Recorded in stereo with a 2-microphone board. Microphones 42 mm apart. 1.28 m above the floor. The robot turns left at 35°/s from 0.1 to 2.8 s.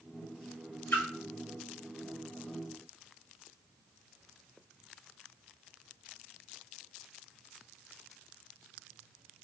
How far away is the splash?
About 0.8 m.